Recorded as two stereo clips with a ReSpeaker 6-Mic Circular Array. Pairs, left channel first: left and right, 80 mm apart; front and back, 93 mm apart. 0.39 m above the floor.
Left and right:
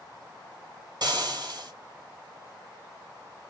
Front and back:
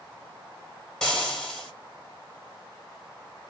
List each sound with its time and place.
1.0 s frying: 85° right, 1.8 m